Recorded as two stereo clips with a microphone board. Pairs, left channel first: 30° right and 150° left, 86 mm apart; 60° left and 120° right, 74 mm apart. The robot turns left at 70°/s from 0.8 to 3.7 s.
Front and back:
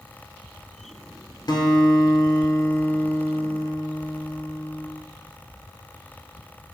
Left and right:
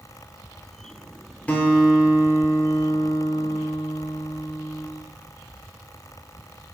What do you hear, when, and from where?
1.5 s a guitar: 5° right, 0.6 m; by 4.9 s 160° right, 0.6 m